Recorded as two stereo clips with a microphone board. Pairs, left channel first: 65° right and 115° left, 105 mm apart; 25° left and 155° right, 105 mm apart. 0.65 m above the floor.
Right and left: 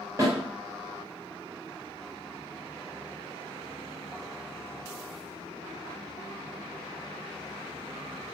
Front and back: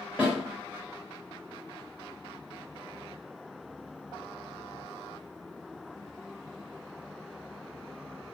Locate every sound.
0.2 s a snare drum: 140° left, 1.3 m